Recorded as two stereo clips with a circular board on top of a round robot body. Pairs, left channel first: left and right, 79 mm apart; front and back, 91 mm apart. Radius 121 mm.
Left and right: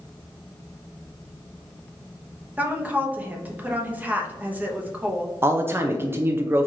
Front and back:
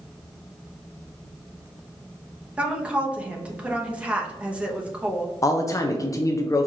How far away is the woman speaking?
About 0.9 m.